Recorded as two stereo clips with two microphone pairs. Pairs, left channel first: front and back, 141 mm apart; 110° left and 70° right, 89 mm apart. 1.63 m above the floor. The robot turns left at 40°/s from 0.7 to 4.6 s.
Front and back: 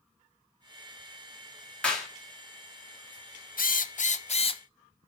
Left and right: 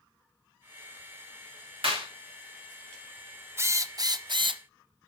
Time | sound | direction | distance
1.8 | a clap | 80° right | 3 m
3.6 | a drill | 10° right | 0.6 m